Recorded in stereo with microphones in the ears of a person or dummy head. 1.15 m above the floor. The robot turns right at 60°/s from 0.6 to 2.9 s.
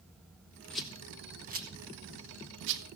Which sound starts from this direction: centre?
A rattle, at 0.7 s.